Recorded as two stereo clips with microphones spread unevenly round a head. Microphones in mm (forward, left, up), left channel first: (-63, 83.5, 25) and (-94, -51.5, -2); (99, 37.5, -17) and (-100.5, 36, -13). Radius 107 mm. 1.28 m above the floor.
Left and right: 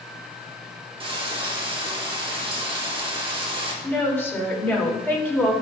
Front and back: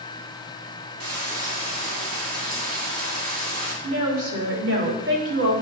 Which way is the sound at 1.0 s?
155° right.